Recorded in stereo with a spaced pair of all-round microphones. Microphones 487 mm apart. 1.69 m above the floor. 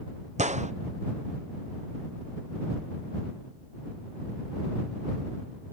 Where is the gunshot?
15° right (ahead or behind).